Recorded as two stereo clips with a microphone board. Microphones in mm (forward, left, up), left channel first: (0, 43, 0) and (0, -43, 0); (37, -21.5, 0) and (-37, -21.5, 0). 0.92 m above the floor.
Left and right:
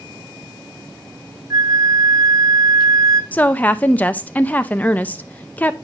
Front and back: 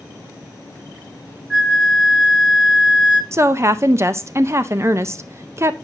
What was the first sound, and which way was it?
A flute, 100° right.